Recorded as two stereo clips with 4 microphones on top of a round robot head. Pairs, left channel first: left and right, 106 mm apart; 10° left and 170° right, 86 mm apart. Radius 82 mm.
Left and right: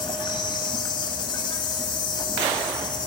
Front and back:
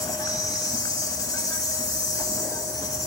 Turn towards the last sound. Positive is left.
turn(degrees=50)